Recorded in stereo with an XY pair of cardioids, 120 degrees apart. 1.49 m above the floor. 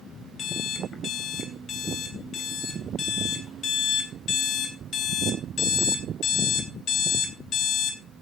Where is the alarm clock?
45° left, 3 m.